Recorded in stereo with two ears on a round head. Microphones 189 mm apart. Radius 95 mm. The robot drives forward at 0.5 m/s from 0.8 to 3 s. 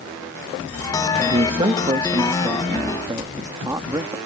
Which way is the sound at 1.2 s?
30° right (ahead or behind).